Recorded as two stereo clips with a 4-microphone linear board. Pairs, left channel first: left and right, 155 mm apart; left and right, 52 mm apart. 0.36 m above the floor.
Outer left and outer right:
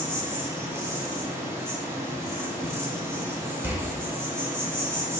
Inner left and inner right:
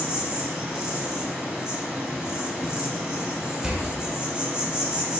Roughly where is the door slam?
Centre.